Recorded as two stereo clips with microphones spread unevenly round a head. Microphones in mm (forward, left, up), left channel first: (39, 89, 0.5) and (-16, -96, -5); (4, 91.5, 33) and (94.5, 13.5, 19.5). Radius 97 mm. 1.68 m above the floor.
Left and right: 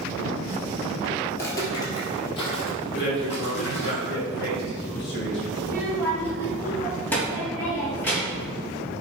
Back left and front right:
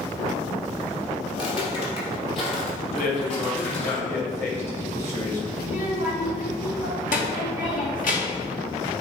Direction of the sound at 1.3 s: 145° left.